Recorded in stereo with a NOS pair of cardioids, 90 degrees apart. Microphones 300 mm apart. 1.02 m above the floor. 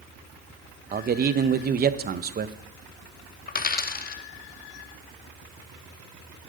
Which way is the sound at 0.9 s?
35° right.